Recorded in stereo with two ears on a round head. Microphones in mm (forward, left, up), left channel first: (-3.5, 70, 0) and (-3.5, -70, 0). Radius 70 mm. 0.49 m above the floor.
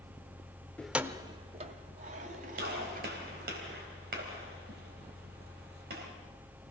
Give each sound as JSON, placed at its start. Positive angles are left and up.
{"t": 0.8, "sound": "keys jangling", "side_deg": 10, "distance_m": 0.6}
{"t": 2.6, "sound": "a gunshot", "side_deg": -65, "distance_m": 3.5}